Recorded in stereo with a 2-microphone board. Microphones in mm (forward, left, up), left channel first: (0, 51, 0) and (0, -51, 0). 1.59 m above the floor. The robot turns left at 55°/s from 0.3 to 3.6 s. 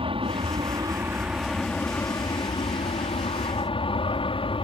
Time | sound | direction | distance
0.0 | an aircraft | 115° right | ?